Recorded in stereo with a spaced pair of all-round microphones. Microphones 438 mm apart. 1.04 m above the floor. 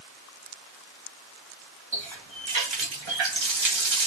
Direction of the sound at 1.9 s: 85° right.